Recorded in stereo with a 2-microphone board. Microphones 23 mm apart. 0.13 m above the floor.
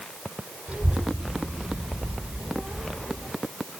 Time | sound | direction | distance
0.7 | a child speaking | 70° right (ahead or behind) | 2.5 m